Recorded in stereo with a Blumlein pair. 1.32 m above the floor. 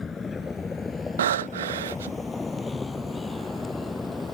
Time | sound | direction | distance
0.0 | a vehicle | 15° left | ?
1.2 | breathing | 60° right | ?